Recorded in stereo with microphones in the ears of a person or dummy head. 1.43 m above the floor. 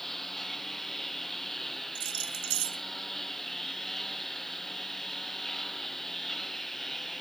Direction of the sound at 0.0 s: Centre (ahead or behind).